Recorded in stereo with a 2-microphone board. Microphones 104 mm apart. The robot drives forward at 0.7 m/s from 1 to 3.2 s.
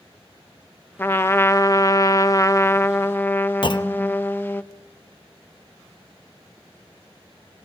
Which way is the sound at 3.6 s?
50° left (ahead or behind).